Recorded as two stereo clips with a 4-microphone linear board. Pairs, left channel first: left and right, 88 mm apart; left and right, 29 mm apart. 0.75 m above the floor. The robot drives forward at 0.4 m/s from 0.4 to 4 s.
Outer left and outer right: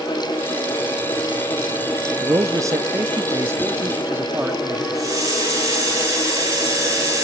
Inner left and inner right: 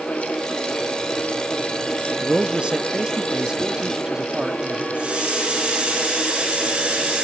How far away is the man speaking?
About 0.8 m.